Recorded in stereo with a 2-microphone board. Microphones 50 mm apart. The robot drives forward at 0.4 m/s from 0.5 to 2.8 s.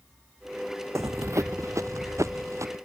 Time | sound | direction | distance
0.9 | running footsteps | 80° right | ?